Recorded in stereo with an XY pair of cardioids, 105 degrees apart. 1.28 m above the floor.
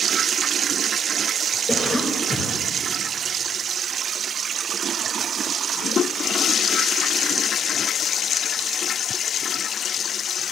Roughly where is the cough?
Ahead.